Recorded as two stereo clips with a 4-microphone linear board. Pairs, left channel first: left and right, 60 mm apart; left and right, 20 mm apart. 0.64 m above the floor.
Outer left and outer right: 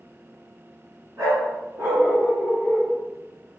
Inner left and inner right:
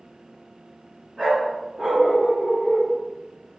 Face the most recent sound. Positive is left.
turn(degrees=-25)  # may be behind; listen again after turning